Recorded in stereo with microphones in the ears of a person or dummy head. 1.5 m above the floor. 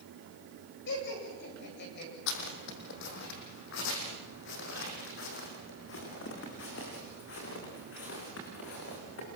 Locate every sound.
0.9 s laughter: 65° left (ahead or behind), 8 m; by 2.1 s 55° left (ahead or behind), 8 m
2.3 s footsteps: 65° left (ahead or behind), 4.5 m; by 9.3 s 70° left (ahead or behind), 9 m